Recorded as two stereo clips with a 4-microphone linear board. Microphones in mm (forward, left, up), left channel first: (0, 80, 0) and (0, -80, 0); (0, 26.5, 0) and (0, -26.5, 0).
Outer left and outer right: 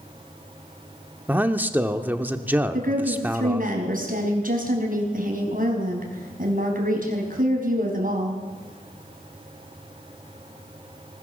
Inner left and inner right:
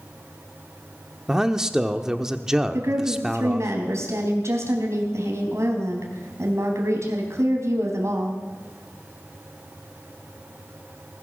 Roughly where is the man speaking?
Centre.